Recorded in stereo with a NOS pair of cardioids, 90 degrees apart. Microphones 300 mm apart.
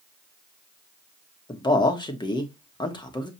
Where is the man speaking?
15° left, 1.0 m.